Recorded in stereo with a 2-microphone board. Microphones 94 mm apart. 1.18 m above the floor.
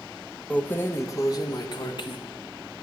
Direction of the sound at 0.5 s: 10° left (ahead or behind).